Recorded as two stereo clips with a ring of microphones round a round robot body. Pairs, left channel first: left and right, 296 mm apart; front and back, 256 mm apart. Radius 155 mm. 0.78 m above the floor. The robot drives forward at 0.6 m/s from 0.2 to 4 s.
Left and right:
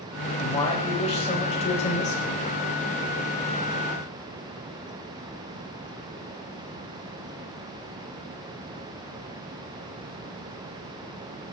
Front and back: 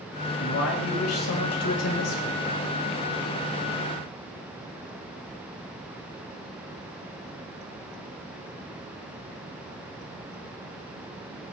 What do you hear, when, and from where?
0.4 s a man speaking: 20° left, 4.5 m; by 2.4 s 25° left, 3.5 m